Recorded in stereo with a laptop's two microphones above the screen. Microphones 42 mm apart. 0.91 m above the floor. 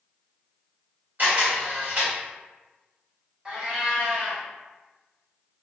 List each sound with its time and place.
1.2 s a camera shutter: 50° right (ahead or behind), 1.4 m
3.5 s a cat meowing: 20° right (ahead or behind), 0.9 m